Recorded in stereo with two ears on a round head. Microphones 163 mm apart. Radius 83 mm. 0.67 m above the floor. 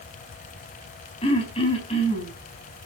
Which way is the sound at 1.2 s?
30° left (ahead or behind).